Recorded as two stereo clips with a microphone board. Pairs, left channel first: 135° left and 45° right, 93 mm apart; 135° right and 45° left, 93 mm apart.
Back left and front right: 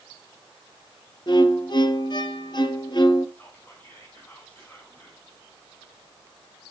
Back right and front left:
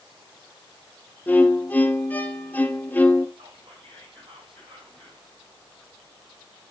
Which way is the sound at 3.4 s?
65° left.